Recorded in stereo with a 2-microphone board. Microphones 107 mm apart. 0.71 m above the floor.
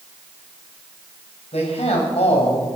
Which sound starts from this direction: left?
A man speaking, at 1.5 s.